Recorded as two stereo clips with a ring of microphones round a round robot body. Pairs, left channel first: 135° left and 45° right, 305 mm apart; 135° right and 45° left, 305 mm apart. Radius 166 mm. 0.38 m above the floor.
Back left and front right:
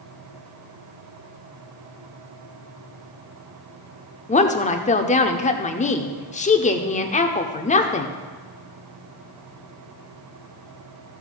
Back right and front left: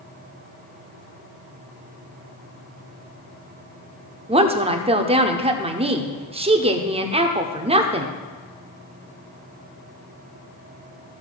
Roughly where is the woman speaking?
Left.